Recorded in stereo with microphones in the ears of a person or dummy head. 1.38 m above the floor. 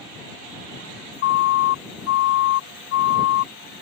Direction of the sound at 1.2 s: 60° left (ahead or behind).